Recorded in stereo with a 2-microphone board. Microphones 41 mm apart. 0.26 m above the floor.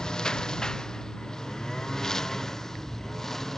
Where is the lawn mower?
20° left (ahead or behind); by 3.6 s 10° left (ahead or behind).